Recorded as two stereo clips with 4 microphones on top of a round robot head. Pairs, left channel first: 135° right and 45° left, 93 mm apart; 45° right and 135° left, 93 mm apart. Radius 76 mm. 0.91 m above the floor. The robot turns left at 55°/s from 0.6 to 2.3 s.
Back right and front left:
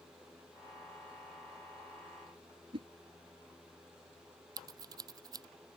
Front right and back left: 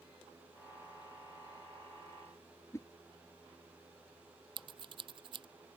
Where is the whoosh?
15° left.